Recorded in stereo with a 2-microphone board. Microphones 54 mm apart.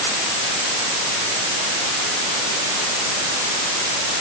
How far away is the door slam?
No door slam in this recording.